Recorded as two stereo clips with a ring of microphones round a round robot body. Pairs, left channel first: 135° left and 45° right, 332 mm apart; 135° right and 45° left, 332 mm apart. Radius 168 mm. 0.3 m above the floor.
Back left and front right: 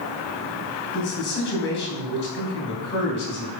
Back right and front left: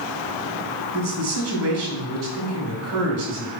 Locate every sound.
0.9 s a man speaking: 80° left, 2.5 m